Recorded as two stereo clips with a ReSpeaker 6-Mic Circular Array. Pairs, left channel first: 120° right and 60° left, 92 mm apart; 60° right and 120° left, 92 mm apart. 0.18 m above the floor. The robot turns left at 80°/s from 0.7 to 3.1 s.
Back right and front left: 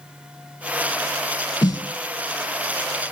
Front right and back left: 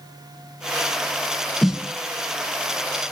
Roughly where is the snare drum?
Behind right.